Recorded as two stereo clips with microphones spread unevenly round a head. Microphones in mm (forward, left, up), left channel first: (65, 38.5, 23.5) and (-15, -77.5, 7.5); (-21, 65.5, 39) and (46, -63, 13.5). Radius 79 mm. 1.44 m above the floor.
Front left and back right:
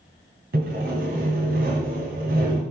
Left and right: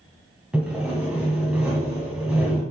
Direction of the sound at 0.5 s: 150° right.